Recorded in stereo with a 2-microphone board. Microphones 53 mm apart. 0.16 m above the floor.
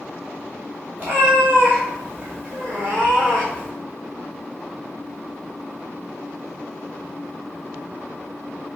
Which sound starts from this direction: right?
A cat meowing, at 1.0 s.